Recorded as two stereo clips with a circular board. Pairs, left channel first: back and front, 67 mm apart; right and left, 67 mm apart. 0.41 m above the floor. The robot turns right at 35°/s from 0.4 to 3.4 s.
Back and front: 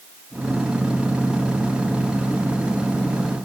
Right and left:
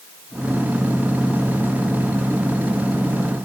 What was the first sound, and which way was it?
Only background noise.